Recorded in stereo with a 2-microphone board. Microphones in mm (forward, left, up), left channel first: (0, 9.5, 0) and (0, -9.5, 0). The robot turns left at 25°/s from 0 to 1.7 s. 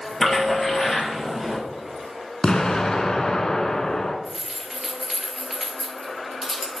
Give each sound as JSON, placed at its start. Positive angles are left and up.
{"t": 0.2, "sound": "a splash", "azimuth_deg": 30, "distance_m": 3.5}
{"t": 2.4, "sound": "an explosion", "side_deg": 45, "distance_m": 1.1}
{"t": 4.2, "sound": "keys jangling", "side_deg": -5, "distance_m": 1.9}